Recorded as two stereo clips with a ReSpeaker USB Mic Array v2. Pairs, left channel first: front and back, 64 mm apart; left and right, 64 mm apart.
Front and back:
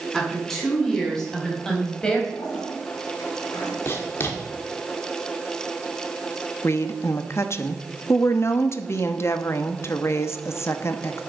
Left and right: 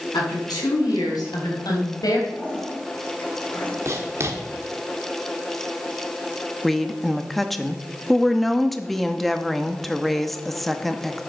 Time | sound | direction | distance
0.1 | a woman speaking | 85° left | 6.5 m
2.3 | a toilet flushing | 25° left | 6.5 m
3.9 | writing | 50° right | 1.9 m
6.6 | a woman speaking | 5° left | 0.9 m